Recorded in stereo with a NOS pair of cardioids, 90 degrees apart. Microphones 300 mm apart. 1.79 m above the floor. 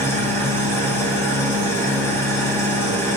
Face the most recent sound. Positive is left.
turn(degrees=10)